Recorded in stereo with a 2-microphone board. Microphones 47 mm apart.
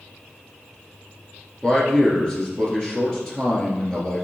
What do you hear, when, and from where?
1.6 s a man speaking: 15° left (ahead or behind), 2.5 m